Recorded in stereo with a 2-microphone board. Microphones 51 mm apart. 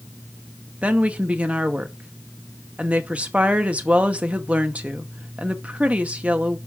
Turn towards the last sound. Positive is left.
turn(degrees=-30)  # may be behind; listen again after turning